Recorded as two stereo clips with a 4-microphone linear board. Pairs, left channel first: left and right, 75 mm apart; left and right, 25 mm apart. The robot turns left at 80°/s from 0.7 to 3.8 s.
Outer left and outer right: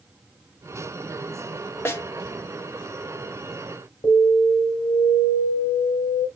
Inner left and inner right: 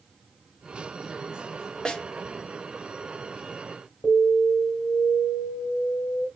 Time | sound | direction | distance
1.9 | a snare drum | 30° left (ahead or behind) | 1.1 m
4.0 | an alarm | 70° left (ahead or behind) | 4 m